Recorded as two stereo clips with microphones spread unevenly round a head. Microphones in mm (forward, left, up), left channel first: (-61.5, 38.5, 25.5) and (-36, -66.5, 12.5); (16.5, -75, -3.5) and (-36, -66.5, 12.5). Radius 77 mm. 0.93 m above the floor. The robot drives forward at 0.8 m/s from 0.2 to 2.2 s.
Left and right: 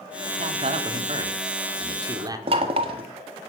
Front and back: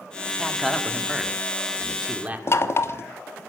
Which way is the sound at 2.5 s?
35° right.